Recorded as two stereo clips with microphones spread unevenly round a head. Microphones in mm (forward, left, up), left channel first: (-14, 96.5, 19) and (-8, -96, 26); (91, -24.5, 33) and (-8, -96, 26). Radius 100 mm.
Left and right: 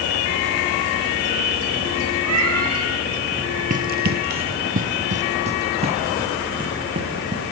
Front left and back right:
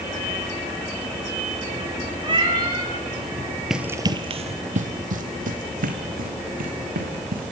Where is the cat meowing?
95° right, 7.5 m.